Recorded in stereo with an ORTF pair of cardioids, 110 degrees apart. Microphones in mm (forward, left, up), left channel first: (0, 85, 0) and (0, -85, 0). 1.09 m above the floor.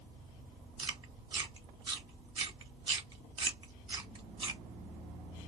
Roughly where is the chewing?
Ahead right.